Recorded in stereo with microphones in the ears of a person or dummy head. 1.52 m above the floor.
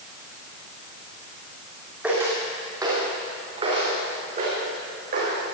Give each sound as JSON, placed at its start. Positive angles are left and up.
{"t": 2.0, "sound": "footsteps", "side_deg": -10, "distance_m": 3.5}